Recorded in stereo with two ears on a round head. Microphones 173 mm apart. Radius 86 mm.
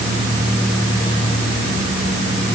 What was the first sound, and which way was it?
Only background noise.